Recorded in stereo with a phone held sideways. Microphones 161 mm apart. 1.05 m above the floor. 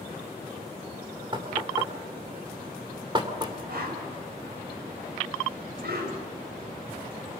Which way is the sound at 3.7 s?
80° right.